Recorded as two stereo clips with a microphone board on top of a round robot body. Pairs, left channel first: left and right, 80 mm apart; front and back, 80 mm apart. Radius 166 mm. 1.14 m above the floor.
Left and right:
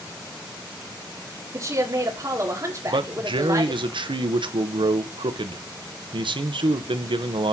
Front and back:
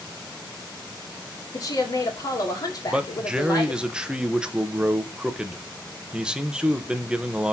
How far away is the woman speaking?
About 2.5 m.